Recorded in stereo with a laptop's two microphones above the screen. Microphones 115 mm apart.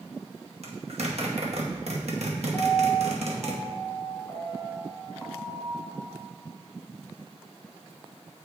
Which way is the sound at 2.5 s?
10° left (ahead or behind).